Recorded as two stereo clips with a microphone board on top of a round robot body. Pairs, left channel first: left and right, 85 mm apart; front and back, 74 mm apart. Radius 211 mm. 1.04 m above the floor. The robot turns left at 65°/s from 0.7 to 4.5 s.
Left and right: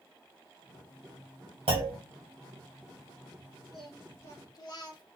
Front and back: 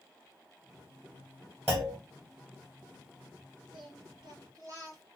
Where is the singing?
175° right, 0.6 m; by 5.0 s 135° left, 0.6 m.